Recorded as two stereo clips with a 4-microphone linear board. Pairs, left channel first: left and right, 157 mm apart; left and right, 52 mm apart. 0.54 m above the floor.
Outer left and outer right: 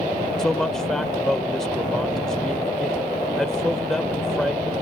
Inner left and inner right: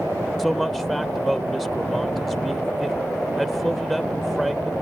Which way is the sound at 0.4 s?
Centre (ahead or behind).